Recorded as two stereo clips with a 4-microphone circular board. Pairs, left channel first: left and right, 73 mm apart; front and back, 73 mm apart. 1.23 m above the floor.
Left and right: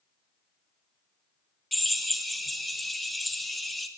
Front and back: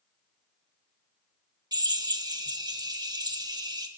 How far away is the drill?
About 1.7 m.